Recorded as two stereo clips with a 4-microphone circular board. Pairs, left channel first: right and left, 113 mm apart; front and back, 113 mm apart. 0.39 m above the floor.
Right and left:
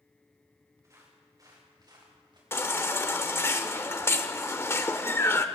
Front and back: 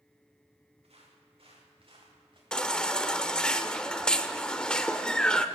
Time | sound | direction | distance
0.8 | footsteps | 150° left | 5 m
2.5 | a baby crying | 70° right | 0.8 m